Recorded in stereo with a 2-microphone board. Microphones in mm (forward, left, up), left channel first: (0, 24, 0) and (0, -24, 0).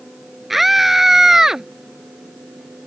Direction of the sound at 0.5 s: 5° right (ahead or behind).